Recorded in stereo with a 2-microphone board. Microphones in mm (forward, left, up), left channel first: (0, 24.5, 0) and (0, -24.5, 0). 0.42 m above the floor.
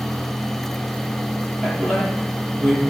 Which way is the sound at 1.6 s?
15° right (ahead or behind).